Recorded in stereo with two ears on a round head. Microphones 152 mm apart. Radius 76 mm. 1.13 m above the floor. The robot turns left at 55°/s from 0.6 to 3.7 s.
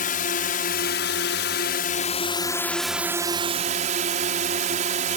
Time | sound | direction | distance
0.0 | a drone | 125° left | ?